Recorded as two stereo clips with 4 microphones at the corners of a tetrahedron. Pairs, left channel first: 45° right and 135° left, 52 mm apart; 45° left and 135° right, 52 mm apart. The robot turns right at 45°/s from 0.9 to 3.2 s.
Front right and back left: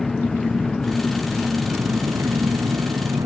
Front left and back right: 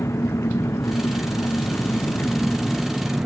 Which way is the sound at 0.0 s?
40° left.